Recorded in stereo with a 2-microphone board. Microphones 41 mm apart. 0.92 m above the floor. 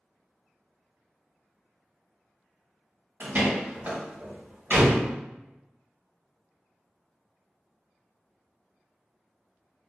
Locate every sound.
3.2 s a door slam: 45° right (ahead or behind), 1.5 m